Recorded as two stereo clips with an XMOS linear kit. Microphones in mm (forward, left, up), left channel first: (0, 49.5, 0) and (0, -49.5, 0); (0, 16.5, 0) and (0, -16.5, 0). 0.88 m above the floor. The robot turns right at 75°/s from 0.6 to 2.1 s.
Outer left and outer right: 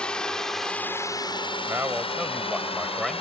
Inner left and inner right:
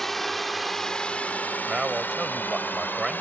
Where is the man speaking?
30° right; by 3.2 s straight ahead.